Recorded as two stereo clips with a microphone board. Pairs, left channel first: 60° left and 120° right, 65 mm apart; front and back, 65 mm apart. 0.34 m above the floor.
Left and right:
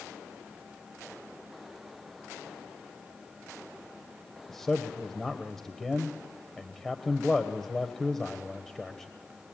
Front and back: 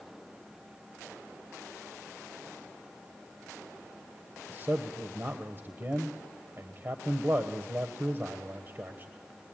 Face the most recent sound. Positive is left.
turn(degrees=140)